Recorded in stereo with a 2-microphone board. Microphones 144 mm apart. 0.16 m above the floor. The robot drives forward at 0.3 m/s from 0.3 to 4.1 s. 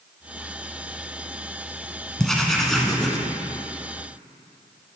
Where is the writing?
Centre (ahead or behind), 1.0 m.